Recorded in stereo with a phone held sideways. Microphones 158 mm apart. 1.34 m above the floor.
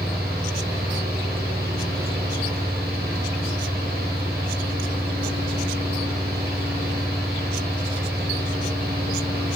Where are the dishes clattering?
I don't hear dishes clattering.